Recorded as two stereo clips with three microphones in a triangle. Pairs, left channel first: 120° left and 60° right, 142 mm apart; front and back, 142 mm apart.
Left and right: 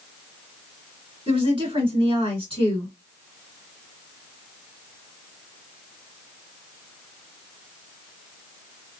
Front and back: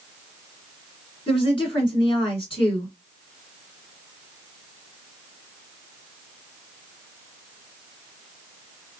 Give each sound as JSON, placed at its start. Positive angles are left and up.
{"t": 1.3, "sound": "a woman speaking", "azimuth_deg": -30, "distance_m": 1.7}